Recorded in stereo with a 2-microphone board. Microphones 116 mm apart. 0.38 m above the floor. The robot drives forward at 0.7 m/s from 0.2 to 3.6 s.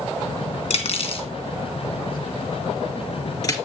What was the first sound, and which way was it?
Cutlery clinking, 60° left (ahead or behind).